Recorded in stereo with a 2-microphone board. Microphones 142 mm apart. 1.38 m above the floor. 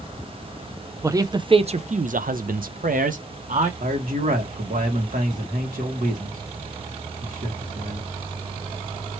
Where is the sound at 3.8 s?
75° right (ahead or behind), 1.9 m.